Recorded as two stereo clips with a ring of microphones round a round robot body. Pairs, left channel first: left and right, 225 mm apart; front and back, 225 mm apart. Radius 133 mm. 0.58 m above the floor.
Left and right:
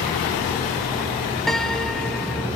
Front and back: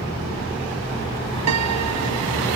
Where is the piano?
Straight behind.